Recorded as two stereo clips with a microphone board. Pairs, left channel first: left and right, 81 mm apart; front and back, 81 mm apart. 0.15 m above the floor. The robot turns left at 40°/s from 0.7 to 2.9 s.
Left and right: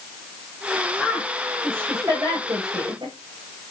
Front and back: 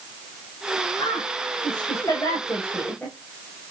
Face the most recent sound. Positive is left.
turn(degrees=-70)